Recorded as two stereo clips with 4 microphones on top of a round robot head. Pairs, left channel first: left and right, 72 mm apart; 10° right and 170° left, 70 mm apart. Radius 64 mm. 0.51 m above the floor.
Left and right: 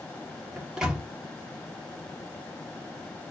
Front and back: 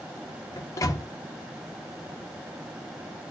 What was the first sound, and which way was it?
A microwave, 15° right.